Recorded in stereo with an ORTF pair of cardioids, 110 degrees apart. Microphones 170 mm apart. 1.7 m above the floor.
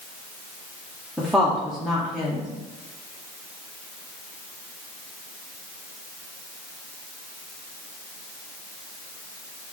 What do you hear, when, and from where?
1.2 s a woman speaking: straight ahead, 0.8 m